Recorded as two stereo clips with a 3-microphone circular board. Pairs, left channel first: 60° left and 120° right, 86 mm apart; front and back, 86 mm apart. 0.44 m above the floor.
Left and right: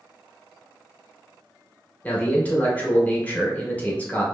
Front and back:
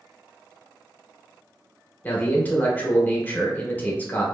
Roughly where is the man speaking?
Ahead left.